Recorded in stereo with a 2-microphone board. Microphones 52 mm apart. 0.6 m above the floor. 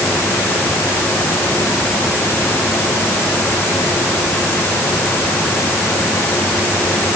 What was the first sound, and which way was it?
Only background noise.